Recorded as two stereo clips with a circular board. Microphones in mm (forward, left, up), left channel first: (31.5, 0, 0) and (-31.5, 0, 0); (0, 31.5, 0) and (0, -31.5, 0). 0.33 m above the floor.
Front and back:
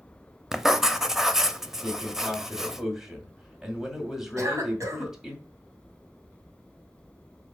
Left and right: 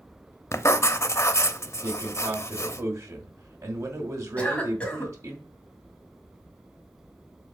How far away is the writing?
About 0.6 m.